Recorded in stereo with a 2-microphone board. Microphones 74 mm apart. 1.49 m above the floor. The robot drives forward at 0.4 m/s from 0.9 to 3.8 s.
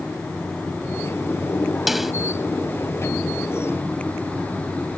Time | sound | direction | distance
1.9 | a snare drum | 5° right (ahead or behind) | ?